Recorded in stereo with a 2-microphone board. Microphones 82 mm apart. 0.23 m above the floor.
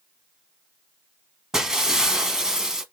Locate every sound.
1.5 s breaking glass: 5° right (ahead or behind), 0.8 m